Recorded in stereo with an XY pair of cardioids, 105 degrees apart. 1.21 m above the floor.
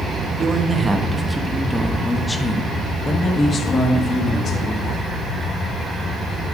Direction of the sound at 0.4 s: 40° right.